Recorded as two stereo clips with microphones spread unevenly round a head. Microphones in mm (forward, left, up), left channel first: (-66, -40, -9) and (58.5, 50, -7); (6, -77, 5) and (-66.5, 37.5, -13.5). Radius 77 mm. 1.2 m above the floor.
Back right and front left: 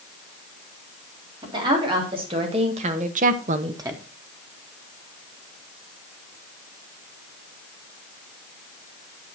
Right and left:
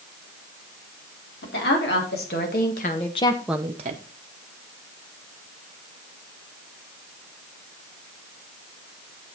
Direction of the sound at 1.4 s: 30° right.